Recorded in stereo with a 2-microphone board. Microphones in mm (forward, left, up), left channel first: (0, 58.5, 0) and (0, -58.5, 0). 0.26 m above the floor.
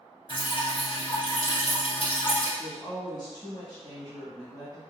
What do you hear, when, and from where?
0.3 s dripping: 50° left (ahead or behind), 1.3 m
2.6 s a woman speaking: 35° left (ahead or behind), 1.3 m